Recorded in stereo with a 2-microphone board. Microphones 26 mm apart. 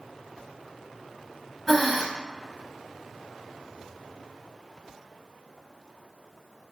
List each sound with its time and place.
1.7 s breathing: 5° left (ahead or behind), 0.8 m